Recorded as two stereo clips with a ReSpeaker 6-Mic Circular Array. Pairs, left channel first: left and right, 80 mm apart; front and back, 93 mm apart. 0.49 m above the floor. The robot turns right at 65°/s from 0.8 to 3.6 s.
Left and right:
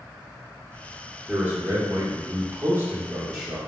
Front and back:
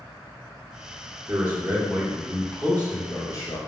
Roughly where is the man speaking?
Behind right.